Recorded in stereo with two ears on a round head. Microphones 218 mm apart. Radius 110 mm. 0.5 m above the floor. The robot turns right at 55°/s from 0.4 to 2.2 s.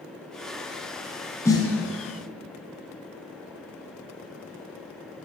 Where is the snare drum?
10° left (ahead or behind), 1.7 m; by 1.7 s 25° left (ahead or behind), 1.7 m.